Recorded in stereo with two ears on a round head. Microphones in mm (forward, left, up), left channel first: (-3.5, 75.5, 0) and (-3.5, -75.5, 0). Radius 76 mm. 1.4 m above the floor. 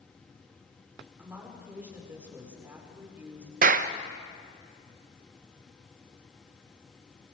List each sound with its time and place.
1.2 s a woman speaking: 10° right (ahead or behind), 4.5 m
3.6 s a clap: 50° right (ahead or behind), 0.8 m